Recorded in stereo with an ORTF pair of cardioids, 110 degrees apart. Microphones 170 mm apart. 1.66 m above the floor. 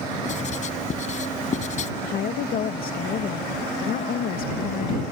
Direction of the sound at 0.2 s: 45° left.